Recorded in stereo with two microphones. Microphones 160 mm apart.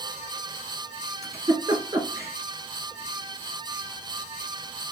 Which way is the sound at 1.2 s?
20° right (ahead or behind).